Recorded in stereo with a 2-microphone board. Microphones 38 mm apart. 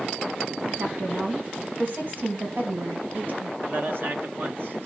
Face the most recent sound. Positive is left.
turn(degrees=-55)  # may be behind; listen again after turning